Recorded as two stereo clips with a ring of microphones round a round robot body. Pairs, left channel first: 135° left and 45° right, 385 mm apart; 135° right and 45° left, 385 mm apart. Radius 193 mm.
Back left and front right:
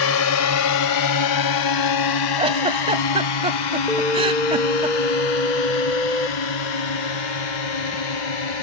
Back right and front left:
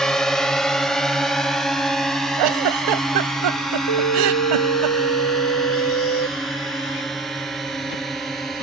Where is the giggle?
30° left.